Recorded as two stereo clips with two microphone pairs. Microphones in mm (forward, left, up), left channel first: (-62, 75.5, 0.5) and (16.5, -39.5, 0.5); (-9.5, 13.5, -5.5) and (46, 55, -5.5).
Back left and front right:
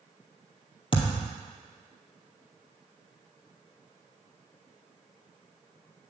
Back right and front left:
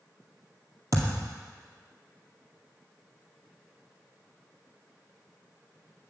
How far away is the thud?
About 1.9 m.